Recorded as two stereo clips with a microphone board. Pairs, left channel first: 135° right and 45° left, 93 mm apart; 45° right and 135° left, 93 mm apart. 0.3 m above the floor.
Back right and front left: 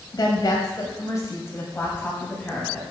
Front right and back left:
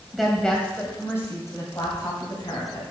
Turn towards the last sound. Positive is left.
turn(degrees=-60)